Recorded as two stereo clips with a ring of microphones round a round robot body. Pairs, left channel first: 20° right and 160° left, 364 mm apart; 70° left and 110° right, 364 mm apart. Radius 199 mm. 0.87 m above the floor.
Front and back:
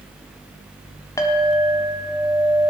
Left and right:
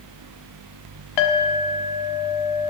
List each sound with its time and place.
1.2 s a clink: 60° left, 1.4 m